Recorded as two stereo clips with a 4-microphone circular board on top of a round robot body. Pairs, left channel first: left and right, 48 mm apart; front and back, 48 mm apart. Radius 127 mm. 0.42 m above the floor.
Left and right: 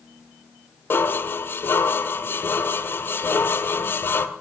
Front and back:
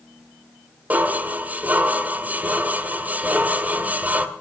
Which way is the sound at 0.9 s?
130° left.